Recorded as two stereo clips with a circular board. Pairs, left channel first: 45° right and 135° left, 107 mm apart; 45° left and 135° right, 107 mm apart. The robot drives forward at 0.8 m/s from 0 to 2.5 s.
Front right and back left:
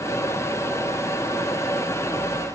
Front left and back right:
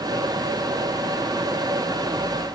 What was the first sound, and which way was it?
Only background noise.